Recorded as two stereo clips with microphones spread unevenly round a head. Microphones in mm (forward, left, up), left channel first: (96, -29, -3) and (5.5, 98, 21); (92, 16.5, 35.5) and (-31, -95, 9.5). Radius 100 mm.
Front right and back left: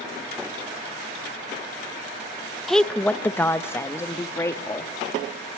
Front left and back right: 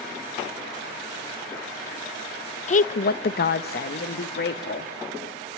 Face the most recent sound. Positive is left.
turn(degrees=15)